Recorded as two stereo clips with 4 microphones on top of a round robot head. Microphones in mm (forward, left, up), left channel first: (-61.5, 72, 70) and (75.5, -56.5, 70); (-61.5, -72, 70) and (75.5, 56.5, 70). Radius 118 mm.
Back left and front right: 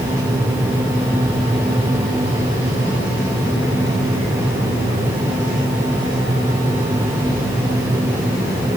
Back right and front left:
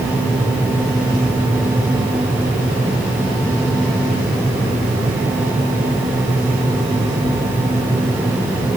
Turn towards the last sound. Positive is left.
No sound to turn to.